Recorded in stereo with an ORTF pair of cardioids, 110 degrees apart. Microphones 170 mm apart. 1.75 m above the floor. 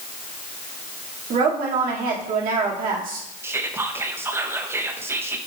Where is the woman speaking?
65° right, 1.5 m.